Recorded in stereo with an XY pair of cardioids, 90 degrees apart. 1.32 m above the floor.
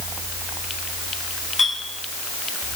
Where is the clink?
25° left, 4.5 m.